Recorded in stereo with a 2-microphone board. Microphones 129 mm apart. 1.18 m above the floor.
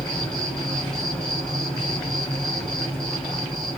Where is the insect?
5° left (ahead or behind), 3 m.